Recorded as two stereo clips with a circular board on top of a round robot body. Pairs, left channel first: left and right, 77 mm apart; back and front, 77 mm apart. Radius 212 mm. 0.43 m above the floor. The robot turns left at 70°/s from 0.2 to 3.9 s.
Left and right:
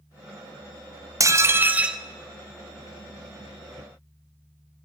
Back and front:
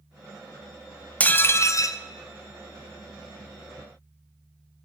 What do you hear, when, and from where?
1.2 s dishes clattering: 115° right, 0.7 m; by 2.0 s 170° right, 0.7 m